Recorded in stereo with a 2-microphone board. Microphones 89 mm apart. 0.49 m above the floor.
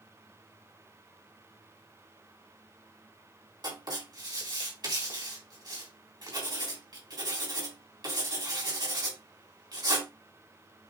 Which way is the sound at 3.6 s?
50° right (ahead or behind).